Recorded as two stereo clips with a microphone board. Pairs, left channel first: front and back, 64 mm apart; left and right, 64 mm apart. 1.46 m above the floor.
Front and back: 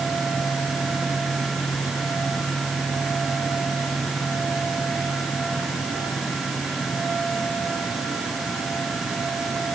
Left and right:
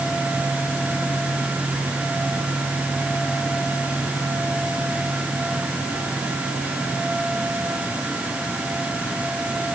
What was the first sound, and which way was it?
Only background noise.